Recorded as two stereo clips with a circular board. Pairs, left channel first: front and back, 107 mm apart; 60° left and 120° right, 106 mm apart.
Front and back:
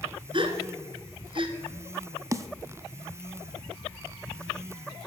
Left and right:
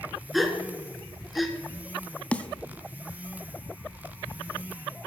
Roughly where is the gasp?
Behind left.